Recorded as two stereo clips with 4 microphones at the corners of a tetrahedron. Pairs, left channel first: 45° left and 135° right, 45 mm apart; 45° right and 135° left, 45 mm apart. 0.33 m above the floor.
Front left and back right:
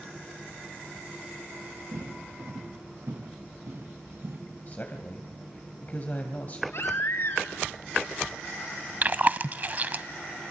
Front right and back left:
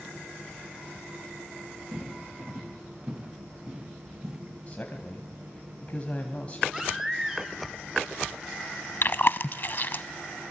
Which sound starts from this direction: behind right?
Footsteps, at 1.9 s.